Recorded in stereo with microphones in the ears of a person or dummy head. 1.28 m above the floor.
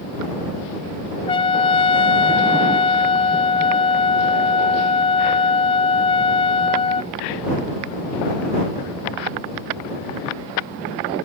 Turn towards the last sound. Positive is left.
turn(degrees=25)  # may be behind; listen again after turning